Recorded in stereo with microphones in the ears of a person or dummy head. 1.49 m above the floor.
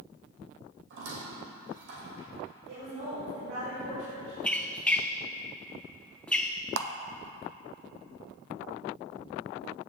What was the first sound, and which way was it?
A squeak, 65° right (ahead or behind).